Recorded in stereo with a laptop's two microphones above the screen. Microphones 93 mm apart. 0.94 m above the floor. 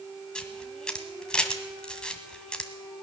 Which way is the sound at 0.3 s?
10° left (ahead or behind).